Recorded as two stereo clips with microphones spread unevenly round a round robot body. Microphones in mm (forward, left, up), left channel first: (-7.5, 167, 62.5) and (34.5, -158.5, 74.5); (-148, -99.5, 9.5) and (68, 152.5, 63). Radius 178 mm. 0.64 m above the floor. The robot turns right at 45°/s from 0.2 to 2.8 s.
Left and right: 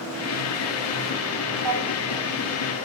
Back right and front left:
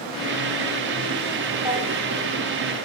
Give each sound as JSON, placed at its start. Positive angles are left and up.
{"t": 1.6, "sound": "a drawer", "azimuth_deg": -100, "distance_m": 2.5}